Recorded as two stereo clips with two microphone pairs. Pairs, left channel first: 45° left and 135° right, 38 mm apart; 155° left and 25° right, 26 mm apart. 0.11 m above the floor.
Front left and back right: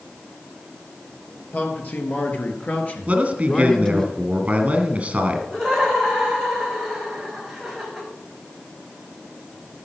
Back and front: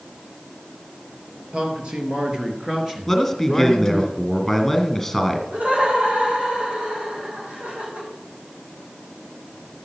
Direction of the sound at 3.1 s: 125° right.